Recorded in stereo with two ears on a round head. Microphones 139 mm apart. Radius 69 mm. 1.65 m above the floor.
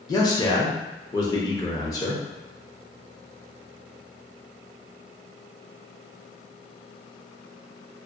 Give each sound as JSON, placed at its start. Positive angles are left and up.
{"t": 0.1, "sound": "a man speaking", "side_deg": 25, "distance_m": 0.7}